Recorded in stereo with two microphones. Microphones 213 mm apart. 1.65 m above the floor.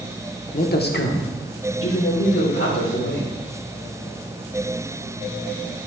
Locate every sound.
0.5 s a man speaking: 35° left (ahead or behind), 0.9 m; by 3.3 s 75° left (ahead or behind), 3 m